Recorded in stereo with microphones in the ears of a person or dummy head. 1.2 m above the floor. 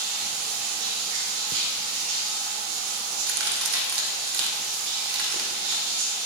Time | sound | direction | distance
0.0 | running water | 65° right (ahead or behind) | 3 m
3.1 | a crack | 75° right (ahead or behind) | 2.5 m